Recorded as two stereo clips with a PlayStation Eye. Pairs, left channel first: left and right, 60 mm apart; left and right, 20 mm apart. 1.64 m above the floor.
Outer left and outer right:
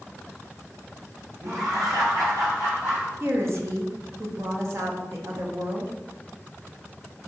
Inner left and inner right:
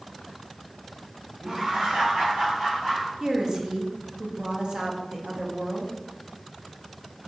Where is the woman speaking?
50° right (ahead or behind), 0.6 m.